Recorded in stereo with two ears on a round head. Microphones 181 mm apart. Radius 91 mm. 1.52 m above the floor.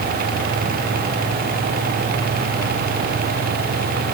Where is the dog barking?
I don't hear a dog barking.